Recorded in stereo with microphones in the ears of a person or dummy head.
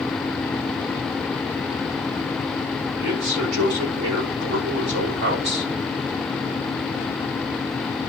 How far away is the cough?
No cough in this recording.